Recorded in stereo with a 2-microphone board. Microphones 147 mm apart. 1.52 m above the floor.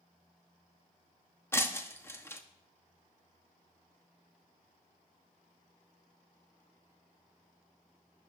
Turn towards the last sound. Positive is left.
turn(degrees=15)  # may be behind; listen again after turning